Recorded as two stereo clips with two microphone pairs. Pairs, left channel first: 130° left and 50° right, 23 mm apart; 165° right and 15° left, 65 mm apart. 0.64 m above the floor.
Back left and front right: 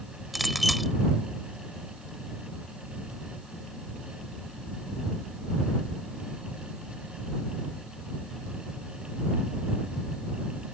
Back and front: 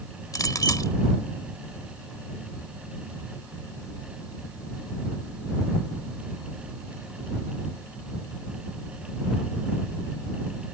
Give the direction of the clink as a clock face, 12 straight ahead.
5 o'clock.